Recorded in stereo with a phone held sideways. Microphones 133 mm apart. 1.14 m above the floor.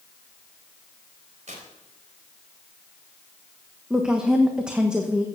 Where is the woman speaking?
5° right (ahead or behind), 1.1 m.